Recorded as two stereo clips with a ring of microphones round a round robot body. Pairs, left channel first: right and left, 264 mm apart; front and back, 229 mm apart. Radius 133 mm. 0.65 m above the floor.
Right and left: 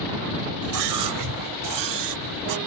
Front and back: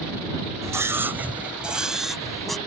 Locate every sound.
0.6 s a scream: 105° left; by 2.6 s 90° left